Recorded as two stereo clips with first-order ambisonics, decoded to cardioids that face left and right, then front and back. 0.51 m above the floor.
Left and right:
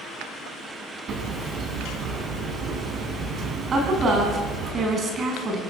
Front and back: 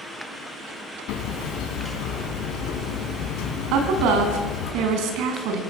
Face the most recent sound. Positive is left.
turn(degrees=-155)